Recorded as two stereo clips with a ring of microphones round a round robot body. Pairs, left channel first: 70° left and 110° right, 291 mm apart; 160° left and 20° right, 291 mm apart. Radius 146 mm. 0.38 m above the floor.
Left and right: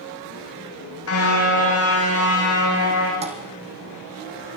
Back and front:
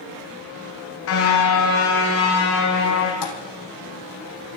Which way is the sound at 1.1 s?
110° left.